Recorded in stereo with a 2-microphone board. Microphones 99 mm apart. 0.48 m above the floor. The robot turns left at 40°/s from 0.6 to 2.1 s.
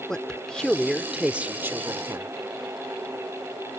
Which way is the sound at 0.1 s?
10° left.